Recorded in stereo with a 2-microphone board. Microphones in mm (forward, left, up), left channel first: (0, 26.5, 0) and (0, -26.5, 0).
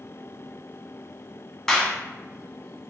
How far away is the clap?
About 0.8 m.